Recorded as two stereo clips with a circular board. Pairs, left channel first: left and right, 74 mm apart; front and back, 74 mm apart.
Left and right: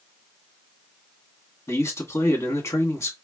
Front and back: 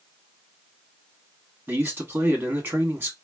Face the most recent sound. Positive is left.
turn(degrees=125)